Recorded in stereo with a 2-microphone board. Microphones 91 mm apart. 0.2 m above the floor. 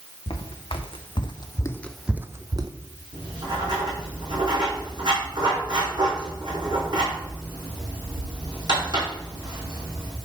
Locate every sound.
0.3 s footsteps: 85° left, 1.5 m; by 2.7 s 45° right (ahead or behind), 0.9 m
3.1 s writing: 50° right (ahead or behind), 5 m